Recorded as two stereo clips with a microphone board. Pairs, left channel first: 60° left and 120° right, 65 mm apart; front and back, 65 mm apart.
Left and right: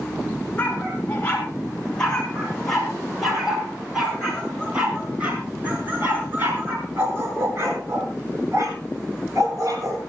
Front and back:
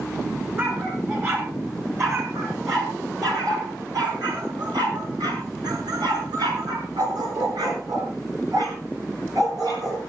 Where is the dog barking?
125° left, 7 m; by 10.0 s 160° right, 9 m.